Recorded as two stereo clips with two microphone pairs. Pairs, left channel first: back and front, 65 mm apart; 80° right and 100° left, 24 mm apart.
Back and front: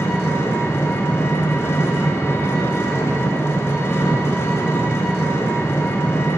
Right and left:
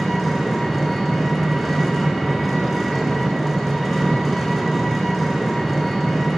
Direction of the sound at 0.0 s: 165° right.